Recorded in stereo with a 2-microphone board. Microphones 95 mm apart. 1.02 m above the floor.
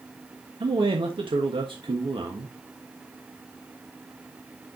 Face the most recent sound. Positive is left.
turn(degrees=-70)  # may be behind; listen again after turning